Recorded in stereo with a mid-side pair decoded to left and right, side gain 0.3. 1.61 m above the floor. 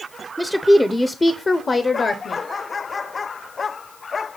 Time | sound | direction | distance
0.4 | a woman speaking | 5° right | 0.7 m